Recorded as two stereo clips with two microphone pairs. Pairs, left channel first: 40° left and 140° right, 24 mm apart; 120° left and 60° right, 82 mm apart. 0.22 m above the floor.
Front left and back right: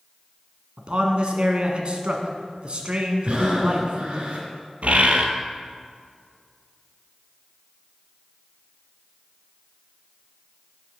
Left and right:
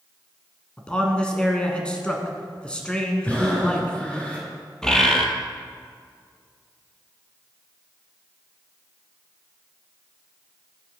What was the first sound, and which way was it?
A man speaking, 165° right.